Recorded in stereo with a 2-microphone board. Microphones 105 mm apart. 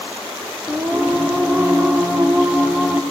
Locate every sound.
0.7 s singing: 15° right (ahead or behind), 2 m